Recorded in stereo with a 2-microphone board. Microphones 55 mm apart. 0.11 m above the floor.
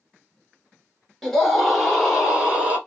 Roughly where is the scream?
Centre.